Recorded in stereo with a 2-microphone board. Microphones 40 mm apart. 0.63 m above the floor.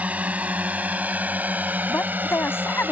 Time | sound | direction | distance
0.0 | a drone | 35° right (ahead or behind) | ?
1.9 | a woman speaking | 75° left (ahead or behind) | ?